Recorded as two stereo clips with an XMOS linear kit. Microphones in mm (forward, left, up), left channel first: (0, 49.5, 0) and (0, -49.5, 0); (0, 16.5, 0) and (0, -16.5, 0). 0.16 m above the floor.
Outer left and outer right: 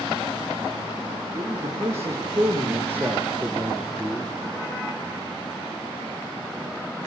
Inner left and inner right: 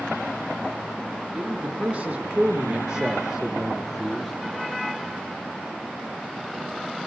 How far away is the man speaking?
About 5.5 m.